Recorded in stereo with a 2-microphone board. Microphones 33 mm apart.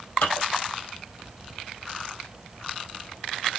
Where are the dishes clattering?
65° left (ahead or behind), 4 m.